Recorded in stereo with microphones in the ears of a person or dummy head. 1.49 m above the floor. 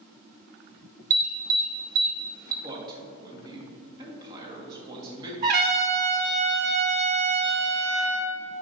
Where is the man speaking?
20° right (ahead or behind), 1.9 m.